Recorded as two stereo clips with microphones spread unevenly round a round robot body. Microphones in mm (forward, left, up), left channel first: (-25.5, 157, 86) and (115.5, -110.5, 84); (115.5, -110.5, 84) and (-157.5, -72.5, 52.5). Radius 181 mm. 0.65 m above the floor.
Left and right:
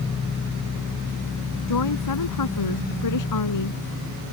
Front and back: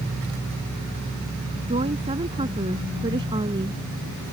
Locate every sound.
1.7 s a woman speaking: 95° left